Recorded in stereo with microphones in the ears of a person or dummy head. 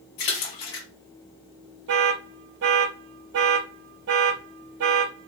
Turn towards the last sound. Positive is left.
turn(degrees=-55)  # may be behind; listen again after turning